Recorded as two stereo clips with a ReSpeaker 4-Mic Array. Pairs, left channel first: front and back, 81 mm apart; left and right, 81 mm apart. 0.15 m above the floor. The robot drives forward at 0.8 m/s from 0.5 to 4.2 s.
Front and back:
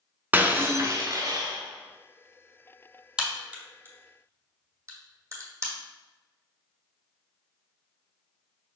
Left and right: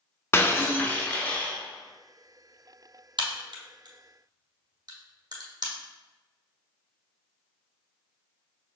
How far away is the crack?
About 1.3 m.